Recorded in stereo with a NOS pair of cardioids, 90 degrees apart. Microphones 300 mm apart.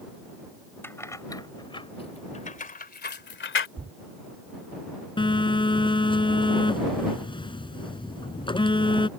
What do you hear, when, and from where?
0.8 s keys jangling: 5° left; by 3.7 s 40° left
3.8 s a thud: 25° right
5.2 s a phone buzzing: 15° left